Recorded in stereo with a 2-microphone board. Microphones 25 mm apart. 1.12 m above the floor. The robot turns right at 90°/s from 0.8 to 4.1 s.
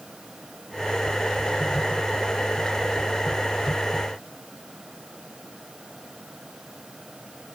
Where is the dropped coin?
I don't hear a dropped coin.